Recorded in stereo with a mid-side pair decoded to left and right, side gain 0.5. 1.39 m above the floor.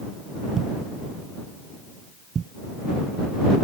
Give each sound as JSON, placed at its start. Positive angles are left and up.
{"t": 0.6, "sound": "a thud", "azimuth_deg": -40}